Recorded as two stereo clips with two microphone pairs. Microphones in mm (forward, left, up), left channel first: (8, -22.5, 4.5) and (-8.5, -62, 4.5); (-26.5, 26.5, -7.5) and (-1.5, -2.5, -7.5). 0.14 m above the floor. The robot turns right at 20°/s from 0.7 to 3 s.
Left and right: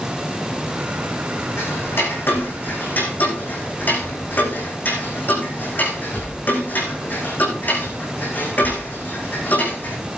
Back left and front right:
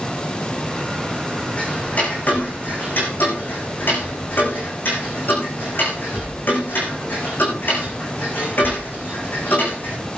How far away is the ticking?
About 5 m.